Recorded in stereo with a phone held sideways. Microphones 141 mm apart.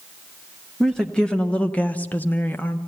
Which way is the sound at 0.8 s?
5° left (ahead or behind).